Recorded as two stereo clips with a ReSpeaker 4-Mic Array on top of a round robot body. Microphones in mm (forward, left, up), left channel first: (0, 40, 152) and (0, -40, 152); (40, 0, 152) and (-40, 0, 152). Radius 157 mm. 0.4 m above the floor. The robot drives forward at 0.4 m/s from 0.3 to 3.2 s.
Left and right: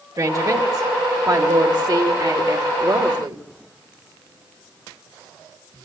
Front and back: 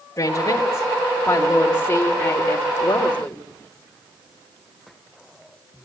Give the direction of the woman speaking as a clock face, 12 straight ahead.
2 o'clock.